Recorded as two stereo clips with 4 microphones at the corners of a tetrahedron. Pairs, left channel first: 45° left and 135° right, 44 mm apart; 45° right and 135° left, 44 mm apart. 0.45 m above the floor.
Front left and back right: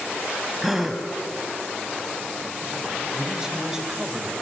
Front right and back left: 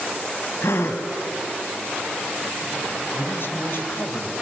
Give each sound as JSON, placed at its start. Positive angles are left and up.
{"t": 0.6, "sound": "a gasp", "azimuth_deg": -50, "distance_m": 1.8}
{"t": 3.1, "sound": "a man speaking", "azimuth_deg": -60, "distance_m": 2.5}